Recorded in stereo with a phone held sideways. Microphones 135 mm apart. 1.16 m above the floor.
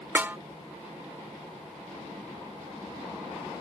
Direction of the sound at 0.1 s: 15° right (ahead or behind).